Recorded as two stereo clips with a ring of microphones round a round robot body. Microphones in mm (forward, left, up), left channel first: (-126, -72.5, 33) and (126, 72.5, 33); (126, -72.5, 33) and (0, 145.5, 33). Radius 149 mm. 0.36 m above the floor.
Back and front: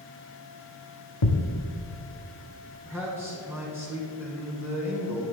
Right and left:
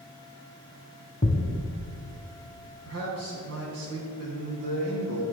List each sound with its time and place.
1.2 s a thud: 125° right, 0.9 m
2.9 s a man speaking: 110° left, 3.5 m